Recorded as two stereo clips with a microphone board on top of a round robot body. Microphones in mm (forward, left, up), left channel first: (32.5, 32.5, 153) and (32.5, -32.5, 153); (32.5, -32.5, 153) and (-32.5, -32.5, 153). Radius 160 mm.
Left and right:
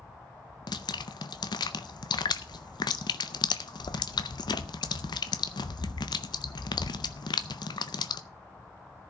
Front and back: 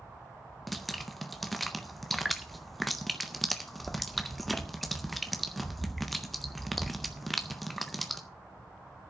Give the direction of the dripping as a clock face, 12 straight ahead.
9 o'clock.